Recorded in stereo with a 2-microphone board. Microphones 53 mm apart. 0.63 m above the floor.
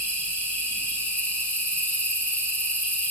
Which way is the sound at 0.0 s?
25° left (ahead or behind).